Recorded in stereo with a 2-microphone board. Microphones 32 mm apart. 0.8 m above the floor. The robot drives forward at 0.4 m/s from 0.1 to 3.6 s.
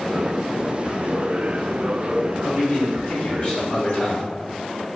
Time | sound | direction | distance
2.4 | a man speaking | 55° left (ahead or behind) | 1.6 m